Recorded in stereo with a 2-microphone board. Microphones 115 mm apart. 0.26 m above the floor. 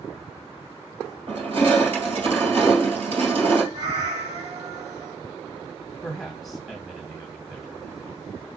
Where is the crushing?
65° right (ahead or behind), 1.9 m.